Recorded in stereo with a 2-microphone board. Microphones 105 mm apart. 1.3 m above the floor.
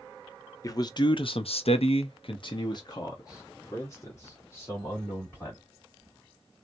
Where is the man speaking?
35° left (ahead or behind), 0.8 m; by 5.6 s 20° left (ahead or behind), 2.5 m.